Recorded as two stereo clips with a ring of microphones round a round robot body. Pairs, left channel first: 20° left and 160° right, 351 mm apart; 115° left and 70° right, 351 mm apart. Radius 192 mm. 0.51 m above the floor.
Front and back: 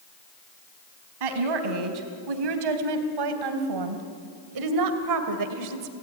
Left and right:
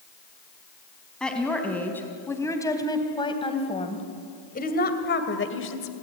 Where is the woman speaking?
160° right, 4 m; by 5.9 s 165° left, 2 m.